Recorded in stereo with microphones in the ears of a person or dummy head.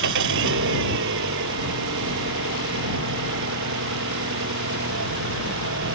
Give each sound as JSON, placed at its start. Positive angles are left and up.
{"t": 0.0, "sound": "an engine running", "side_deg": -65}